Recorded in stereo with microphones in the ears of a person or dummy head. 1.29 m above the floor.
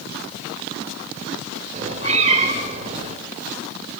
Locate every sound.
1.7 s a cat meowing: 35° right (ahead or behind), 1.6 m